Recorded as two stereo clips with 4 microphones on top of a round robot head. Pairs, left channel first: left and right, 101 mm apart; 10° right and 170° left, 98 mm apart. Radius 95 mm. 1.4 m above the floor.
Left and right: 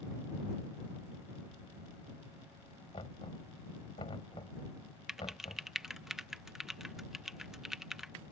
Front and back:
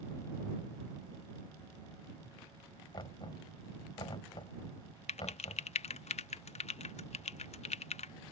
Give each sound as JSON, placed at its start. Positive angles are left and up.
{"t": 2.9, "sound": "knocking", "azimuth_deg": 35}
{"t": 5.1, "sound": "typing on a keyboard", "azimuth_deg": -5}